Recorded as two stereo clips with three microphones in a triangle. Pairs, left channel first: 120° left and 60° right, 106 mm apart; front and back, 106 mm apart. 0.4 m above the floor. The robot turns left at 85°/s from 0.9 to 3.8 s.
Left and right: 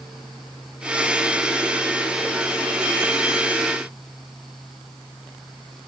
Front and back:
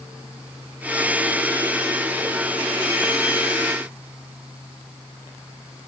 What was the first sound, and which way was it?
Only background noise.